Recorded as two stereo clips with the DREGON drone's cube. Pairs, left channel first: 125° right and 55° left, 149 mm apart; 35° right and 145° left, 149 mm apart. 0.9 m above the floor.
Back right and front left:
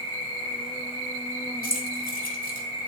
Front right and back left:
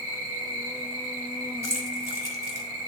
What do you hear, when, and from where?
0.0 s an insect: 170° right, 4 m
1.6 s keys jangling: 145° right, 1.7 m